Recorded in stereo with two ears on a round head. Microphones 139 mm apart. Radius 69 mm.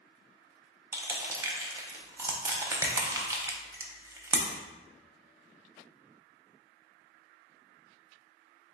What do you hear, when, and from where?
0.9 s crushing: 15° right (ahead or behind), 0.5 m